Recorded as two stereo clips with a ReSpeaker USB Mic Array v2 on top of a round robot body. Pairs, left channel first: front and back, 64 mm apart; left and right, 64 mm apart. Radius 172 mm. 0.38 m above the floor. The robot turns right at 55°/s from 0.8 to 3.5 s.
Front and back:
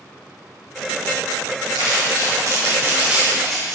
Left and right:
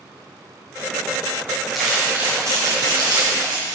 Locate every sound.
1.8 s crumpling: straight behind, 3 m; by 3.8 s 85° right, 3 m